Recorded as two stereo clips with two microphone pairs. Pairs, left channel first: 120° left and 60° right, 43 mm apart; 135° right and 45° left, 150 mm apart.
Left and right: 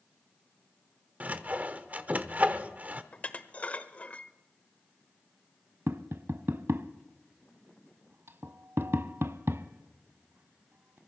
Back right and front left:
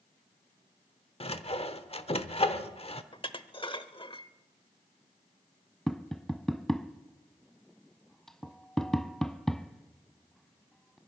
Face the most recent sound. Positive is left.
turn(degrees=-45)